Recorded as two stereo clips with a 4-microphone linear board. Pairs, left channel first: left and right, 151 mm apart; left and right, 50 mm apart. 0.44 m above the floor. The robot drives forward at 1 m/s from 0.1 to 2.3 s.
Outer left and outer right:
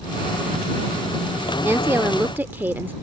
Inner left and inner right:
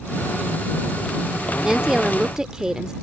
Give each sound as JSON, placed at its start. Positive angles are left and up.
{"t": 1.6, "sound": "a woman speaking", "side_deg": -15}